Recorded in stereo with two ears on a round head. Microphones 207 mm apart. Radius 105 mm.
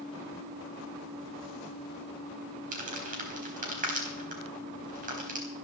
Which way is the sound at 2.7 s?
40° right (ahead or behind).